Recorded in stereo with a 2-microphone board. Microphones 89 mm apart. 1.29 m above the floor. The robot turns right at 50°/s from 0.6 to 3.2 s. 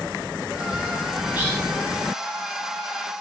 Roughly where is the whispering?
Centre.